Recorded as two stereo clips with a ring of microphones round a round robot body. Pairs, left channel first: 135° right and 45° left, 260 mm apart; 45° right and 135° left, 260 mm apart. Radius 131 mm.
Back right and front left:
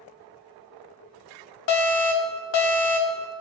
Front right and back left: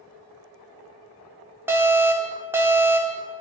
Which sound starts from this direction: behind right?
An alarm, at 1.7 s.